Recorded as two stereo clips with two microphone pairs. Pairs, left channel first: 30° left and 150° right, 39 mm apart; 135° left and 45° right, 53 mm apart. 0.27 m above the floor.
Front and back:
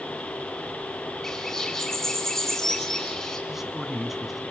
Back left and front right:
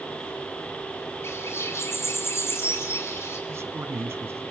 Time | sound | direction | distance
1.2 | a bird | 110° left | 3.5 m
3.5 | a man speaking | 70° right | 1.9 m